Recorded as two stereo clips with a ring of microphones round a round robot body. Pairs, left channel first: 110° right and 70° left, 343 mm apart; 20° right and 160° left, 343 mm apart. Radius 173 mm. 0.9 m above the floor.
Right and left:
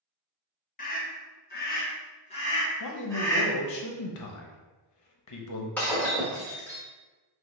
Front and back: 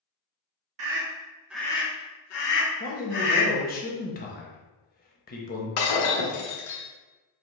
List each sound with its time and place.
0.8 s a scream: 170° right, 1.3 m; by 3.5 s 30° right, 2 m
2.8 s a man speaking: 85° right, 0.9 m
5.8 s breaking glass: 25° right, 1.1 m